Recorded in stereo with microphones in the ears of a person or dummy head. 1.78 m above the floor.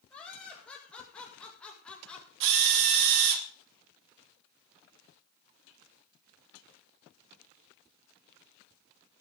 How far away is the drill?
About 1.4 m.